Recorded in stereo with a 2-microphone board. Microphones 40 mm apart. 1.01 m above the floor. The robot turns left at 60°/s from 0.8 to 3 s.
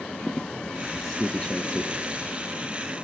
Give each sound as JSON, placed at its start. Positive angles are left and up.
{"t": 0.2, "sound": "a squeak", "side_deg": 0, "distance_m": 1.0}